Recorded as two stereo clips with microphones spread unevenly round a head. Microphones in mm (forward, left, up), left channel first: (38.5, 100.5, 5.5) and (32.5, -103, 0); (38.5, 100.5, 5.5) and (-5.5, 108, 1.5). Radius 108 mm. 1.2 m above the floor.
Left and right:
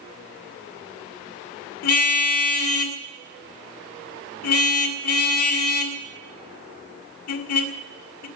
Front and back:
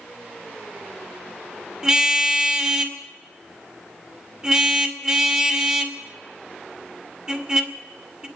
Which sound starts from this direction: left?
A car horn, at 1.8 s.